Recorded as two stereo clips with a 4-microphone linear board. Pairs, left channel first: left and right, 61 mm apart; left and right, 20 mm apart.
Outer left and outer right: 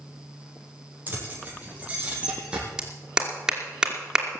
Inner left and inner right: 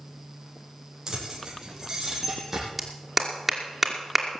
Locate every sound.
1.1 s keys jangling: 30° right (ahead or behind), 4 m; by 2.7 s 15° right (ahead or behind), 5 m
2.8 s a clap: 10° right (ahead or behind), 2.5 m